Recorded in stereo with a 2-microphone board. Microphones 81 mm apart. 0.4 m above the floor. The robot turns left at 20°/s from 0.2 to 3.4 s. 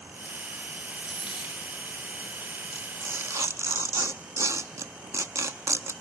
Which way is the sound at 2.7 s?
25° right (ahead or behind).